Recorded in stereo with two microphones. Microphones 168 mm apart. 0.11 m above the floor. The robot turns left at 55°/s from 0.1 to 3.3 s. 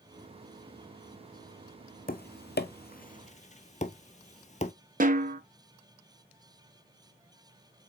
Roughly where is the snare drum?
Right.